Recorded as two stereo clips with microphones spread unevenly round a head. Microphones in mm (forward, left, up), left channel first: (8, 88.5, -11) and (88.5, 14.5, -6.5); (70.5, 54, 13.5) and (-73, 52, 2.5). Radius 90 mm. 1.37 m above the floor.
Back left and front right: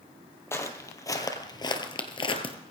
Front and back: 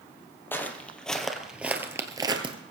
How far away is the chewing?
No chewing in this recording.